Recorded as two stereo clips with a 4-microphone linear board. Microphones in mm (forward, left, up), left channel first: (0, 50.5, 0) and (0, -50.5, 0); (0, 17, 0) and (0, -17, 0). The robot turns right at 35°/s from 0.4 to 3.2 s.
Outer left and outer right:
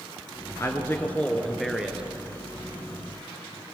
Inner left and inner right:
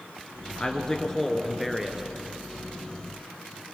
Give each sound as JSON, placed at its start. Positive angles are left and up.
{"t": 0.6, "sound": "a man speaking", "azimuth_deg": 145, "distance_m": 2.0}